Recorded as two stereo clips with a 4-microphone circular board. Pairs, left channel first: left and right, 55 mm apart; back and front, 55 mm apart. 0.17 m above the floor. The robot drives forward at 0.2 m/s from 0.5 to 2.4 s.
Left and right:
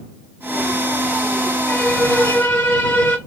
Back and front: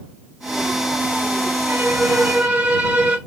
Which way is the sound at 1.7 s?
45° left.